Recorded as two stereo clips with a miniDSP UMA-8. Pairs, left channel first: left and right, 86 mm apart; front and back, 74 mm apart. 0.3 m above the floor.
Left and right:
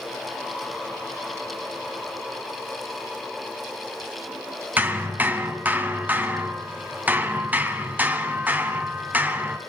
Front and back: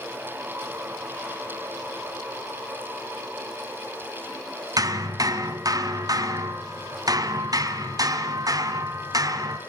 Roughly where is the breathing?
No breathing in this recording.